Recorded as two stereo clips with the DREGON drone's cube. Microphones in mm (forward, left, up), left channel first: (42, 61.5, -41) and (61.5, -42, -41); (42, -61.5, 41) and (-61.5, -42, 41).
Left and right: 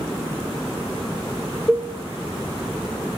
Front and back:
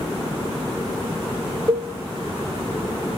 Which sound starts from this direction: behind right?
A cowbell, at 1.7 s.